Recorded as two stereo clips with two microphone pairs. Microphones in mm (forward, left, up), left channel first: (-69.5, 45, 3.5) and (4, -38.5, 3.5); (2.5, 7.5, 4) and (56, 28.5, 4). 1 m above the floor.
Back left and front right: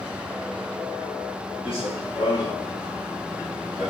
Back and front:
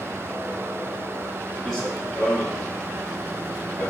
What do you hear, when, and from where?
1.6 s running footsteps: 120° left, 1.6 m; by 3.9 s 140° right, 1.0 m